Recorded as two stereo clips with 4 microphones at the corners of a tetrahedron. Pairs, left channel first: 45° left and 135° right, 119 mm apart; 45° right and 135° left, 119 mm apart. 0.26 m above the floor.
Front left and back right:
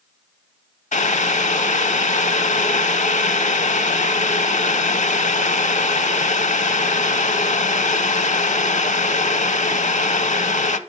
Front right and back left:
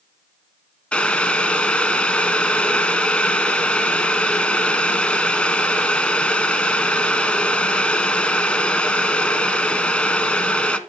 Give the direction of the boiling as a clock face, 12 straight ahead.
11 o'clock.